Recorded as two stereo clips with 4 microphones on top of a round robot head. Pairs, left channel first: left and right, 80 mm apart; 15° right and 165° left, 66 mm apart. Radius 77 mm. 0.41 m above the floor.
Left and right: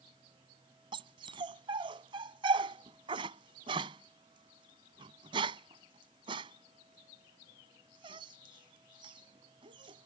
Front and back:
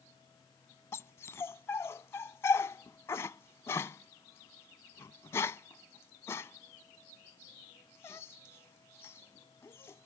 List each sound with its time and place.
0.9 s a dog barking: 70° right